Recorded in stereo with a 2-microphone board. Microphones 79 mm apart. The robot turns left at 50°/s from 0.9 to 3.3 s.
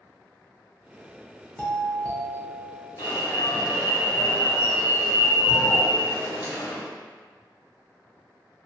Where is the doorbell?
20° left (ahead or behind), 0.7 m; by 2.9 s centre (ahead or behind), 0.7 m.